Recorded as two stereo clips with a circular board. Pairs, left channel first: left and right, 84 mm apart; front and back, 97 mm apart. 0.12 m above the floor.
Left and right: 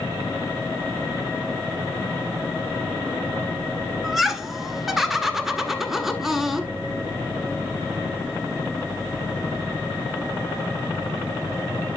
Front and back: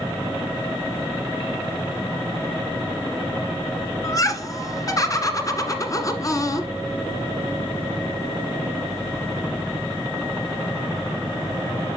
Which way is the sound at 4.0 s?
5° right.